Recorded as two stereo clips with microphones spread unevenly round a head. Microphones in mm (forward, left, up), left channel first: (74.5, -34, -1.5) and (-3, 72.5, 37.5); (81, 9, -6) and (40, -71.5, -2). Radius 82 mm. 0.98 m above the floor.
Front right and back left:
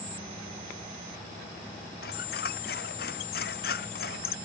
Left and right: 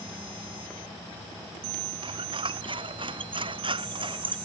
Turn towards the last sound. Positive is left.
turn(degrees=-85)